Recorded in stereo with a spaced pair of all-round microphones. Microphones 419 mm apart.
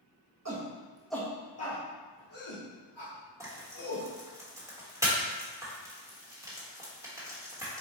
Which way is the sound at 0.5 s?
40° right (ahead or behind).